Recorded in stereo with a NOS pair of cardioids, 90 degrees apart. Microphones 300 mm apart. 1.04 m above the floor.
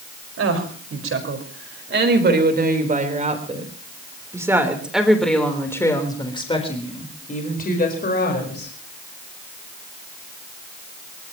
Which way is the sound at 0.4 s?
50° right.